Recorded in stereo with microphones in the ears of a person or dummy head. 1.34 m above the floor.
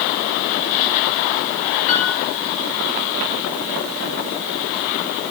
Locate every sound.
1.9 s a piano: 45° left (ahead or behind), 3 m